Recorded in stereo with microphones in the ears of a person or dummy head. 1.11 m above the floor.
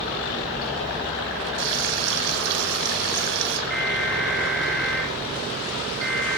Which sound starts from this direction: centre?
An alarm, at 3.7 s.